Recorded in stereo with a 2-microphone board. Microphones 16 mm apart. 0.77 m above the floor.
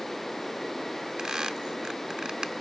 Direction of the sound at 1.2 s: 60° right (ahead or behind).